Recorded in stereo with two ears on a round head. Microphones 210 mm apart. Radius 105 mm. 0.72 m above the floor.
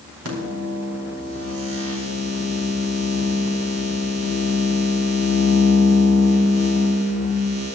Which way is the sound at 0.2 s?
70° right (ahead or behind).